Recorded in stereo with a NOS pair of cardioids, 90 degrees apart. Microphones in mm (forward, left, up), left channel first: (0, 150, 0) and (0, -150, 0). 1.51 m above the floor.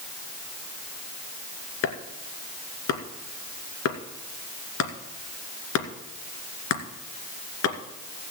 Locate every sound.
1.8 s chopping: 55° left, 2.5 m